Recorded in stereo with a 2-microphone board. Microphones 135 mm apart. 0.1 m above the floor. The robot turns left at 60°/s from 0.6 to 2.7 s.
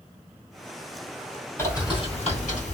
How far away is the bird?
About 1.8 m.